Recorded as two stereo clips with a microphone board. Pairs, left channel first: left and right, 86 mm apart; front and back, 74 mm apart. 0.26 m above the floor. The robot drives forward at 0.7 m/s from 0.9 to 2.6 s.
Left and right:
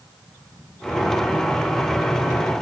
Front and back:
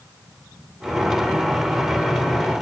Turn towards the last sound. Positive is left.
No sound to turn to.